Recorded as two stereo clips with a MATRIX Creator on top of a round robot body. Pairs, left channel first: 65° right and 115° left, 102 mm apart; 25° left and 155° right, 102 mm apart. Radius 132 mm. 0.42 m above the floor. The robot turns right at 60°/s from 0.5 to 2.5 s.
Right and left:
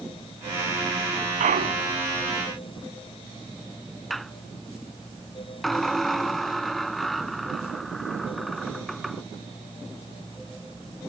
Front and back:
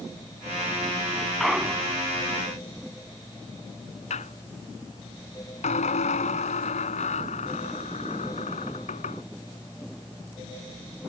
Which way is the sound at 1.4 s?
110° left.